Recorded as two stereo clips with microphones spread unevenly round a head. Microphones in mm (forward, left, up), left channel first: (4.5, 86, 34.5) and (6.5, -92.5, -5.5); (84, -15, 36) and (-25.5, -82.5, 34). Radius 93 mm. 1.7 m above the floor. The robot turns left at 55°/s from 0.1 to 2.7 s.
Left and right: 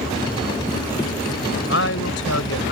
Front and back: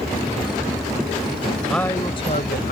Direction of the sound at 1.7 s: 120° left.